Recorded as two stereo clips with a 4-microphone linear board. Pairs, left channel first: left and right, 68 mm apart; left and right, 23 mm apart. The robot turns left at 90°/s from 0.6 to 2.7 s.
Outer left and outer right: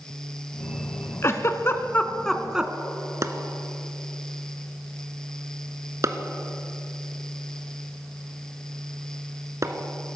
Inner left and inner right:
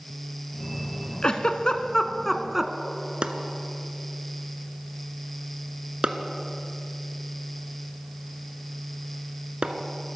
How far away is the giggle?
About 0.8 m.